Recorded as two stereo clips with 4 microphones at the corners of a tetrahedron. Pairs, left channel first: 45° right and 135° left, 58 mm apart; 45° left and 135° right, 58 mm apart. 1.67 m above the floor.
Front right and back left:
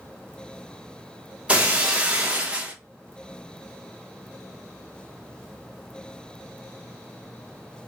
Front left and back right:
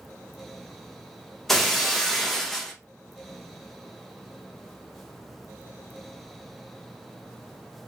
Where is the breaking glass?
125° left, 0.8 m.